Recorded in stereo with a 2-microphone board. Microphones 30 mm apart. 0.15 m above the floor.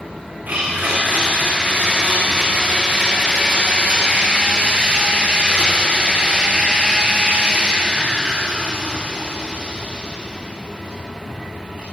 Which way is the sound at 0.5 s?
65° right (ahead or behind).